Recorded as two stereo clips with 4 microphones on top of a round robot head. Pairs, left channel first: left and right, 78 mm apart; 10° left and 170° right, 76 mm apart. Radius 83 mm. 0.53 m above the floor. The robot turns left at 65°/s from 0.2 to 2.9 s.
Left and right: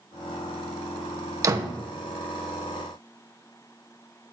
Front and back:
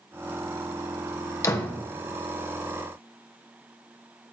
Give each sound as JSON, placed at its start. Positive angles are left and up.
{"t": 1.4, "sound": "a door slam", "azimuth_deg": -45, "distance_m": 1.3}